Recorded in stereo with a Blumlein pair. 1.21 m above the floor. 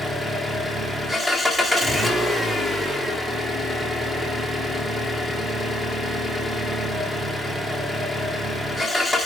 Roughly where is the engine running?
Ahead.